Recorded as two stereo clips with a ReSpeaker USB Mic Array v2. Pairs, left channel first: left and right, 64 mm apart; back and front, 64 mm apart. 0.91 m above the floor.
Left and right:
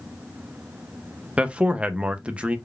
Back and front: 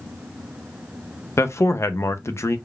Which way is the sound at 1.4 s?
155° right.